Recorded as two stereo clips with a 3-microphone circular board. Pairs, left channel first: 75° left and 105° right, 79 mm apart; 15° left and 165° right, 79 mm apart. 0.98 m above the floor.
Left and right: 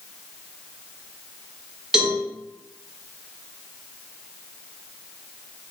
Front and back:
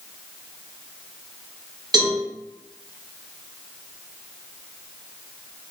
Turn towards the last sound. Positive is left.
turn(degrees=170)